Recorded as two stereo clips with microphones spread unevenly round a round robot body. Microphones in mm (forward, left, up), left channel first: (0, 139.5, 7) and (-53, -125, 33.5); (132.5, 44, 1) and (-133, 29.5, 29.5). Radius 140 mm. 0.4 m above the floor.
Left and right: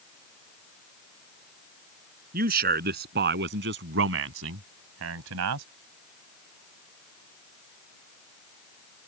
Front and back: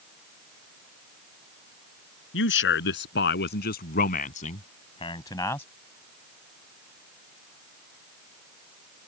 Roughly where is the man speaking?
Ahead right.